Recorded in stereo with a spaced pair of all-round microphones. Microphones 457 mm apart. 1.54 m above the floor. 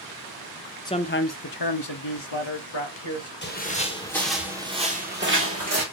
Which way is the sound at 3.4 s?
25° left (ahead or behind).